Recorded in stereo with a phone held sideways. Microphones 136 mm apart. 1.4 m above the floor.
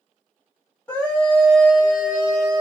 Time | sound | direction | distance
0.9 | a scream | 15° left (ahead or behind) | 1.3 m